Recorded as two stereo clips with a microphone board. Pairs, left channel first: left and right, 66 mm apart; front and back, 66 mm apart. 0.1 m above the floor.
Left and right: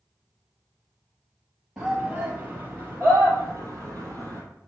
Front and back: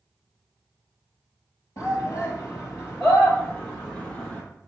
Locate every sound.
1.8 s a shout: 15° right, 2 m; by 4.4 s 60° right, 2.5 m